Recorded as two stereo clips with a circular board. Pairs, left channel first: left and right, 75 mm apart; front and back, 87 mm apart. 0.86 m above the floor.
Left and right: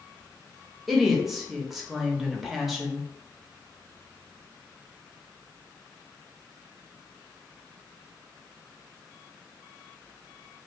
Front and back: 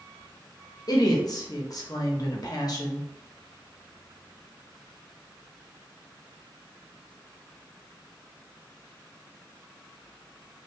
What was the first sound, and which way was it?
A woman speaking, 5° right.